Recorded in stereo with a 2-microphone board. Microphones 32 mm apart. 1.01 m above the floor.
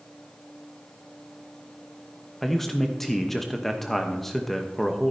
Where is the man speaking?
10° left (ahead or behind), 0.8 m.